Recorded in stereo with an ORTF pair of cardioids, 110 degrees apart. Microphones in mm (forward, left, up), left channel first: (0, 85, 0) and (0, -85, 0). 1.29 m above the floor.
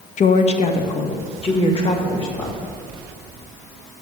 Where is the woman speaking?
45° left, 0.7 m; by 2.6 s 30° left, 2.5 m.